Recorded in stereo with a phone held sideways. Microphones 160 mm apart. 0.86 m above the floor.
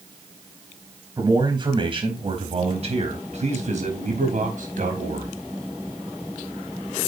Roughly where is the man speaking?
Right.